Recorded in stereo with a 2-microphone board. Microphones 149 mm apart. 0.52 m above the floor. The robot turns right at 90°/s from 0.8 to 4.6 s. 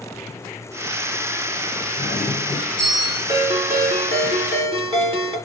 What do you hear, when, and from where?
2.0 s a doorbell: 75° left, 5 m; by 3.2 s 175° right, 5 m
3.3 s a ringtone: 155° right, 3 m; by 5.4 s 40° right, 3 m